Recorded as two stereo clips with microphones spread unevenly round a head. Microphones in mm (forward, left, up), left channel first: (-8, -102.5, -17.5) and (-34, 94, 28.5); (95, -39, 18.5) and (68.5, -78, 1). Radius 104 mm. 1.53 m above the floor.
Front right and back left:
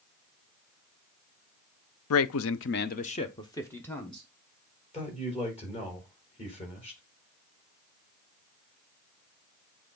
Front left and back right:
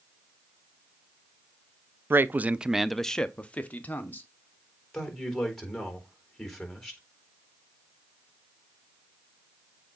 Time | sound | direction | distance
2.1 | a man speaking | 85° right | 0.6 m
4.9 | a man speaking | 20° right | 4 m